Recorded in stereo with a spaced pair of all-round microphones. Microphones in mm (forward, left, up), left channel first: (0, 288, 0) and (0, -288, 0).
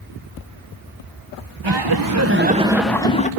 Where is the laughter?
50° right (ahead or behind), 1.0 m; by 3.3 s 15° left (ahead or behind), 1.2 m.